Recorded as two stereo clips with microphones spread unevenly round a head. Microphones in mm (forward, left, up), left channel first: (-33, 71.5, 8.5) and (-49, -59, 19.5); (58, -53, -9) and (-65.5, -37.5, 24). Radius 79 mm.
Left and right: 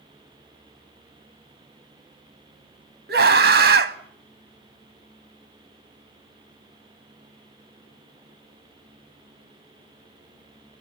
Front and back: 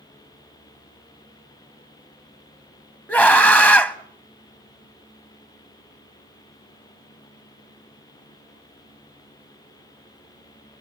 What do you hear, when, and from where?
3.1 s a scream: 80° right, 1.5 m